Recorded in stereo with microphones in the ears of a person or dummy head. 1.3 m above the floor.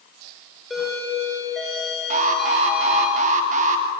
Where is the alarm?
40° right (ahead or behind), 2.5 m.